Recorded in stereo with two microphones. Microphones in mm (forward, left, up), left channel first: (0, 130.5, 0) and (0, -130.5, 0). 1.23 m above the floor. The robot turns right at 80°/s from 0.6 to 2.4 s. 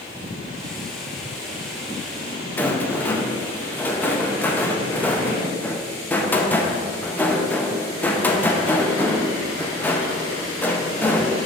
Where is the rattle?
5° left (ahead or behind), 0.7 m.